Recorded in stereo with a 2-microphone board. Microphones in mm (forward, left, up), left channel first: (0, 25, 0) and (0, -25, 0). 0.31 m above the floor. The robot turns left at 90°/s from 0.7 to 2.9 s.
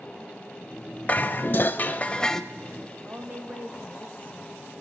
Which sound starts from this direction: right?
A woman speaking, at 3.0 s.